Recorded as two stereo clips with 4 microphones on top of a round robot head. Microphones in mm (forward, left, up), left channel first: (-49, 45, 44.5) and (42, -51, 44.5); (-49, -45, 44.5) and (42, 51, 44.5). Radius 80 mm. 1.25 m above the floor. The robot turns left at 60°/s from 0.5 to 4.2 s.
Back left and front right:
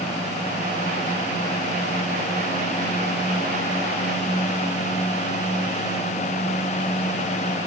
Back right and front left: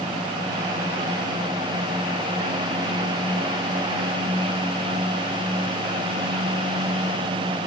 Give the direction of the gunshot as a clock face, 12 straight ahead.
No gunshot in this recording.